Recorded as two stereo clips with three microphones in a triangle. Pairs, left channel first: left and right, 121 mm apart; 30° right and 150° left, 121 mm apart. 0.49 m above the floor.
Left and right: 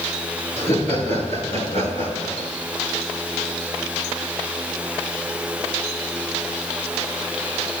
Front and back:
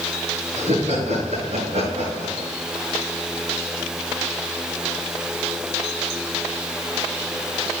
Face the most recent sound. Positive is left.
turn(degrees=115)